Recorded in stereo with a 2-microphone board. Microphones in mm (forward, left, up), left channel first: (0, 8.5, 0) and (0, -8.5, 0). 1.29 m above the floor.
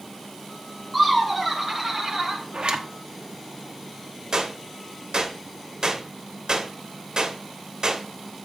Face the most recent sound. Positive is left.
turn(degrees=-55)  # may be behind; listen again after turning